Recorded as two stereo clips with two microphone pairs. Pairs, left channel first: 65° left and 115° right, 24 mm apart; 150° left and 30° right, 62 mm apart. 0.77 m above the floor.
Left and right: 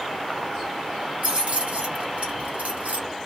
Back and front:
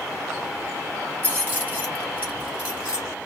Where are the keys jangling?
90° right, 2 m; by 3.1 s 105° right, 1.4 m.